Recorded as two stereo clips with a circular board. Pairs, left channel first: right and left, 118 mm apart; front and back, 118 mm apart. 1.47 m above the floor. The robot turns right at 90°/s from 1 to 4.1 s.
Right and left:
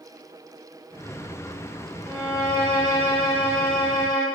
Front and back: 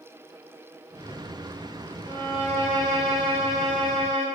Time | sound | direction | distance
2.0 | a violin | 110° right | 0.8 m